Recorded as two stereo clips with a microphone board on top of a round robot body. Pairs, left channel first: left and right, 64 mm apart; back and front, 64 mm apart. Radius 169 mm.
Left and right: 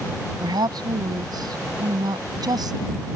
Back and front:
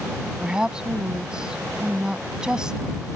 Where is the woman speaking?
80° right.